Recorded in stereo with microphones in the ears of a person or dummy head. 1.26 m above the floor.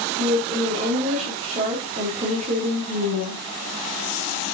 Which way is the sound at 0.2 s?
40° right (ahead or behind).